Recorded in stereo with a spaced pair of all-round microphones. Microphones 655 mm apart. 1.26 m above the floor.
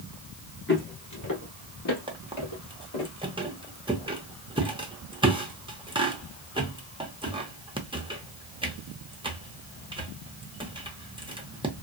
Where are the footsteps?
15° left (ahead or behind), 1.2 m; by 3.1 s 50° left (ahead or behind), 1.9 m.